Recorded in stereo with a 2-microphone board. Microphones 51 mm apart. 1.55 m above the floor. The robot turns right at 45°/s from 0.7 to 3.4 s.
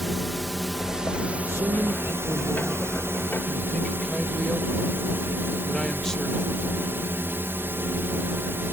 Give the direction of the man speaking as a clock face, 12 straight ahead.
3 o'clock.